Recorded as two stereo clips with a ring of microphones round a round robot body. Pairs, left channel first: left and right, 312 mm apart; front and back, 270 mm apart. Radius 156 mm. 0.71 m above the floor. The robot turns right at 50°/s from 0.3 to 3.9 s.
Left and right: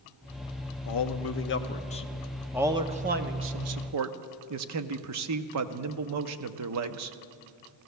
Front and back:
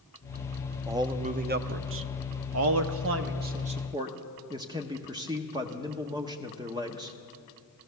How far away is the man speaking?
About 0.8 m.